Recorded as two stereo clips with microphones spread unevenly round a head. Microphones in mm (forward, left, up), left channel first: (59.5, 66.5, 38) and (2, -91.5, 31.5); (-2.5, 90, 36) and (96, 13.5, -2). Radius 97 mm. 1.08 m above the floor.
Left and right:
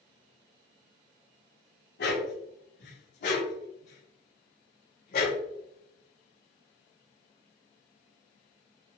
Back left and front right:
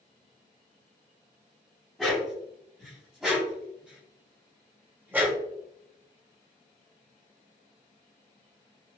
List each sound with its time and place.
2.0 s a dog barking: 55° left, 4.5 m; by 5.4 s 40° left, 2.5 m